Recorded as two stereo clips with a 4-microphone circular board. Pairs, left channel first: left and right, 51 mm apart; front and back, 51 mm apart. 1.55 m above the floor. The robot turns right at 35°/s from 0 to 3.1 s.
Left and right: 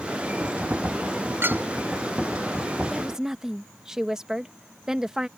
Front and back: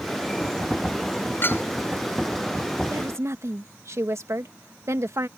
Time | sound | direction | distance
1.4 | a clink | 45° right | ?
2.9 | a woman speaking | 175° right | ?